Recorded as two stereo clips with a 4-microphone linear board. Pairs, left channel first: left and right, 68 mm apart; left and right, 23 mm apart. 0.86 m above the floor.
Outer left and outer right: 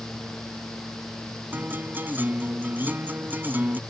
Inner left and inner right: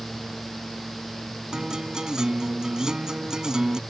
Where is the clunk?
I don't hear a clunk.